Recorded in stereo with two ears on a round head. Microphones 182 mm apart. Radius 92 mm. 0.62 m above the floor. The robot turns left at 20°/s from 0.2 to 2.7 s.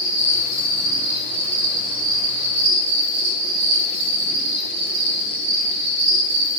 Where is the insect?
5° right, 2 m; by 6.6 s 55° right, 2 m.